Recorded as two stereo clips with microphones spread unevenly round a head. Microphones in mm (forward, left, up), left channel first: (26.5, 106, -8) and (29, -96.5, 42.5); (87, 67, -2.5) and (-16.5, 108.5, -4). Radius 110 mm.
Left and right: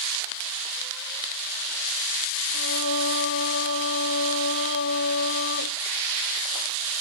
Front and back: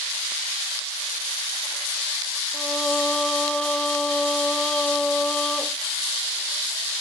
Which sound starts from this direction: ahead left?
Singing, at 2.5 s.